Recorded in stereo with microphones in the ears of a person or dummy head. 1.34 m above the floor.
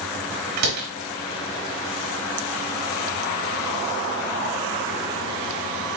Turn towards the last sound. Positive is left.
turn(degrees=-55)  # may be behind; listen again after turning